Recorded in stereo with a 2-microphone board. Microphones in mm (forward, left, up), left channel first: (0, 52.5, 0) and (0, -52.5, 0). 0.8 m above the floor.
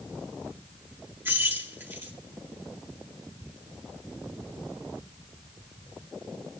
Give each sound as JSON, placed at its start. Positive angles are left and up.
{"t": 1.2, "sound": "keys jangling", "side_deg": -20, "distance_m": 6.0}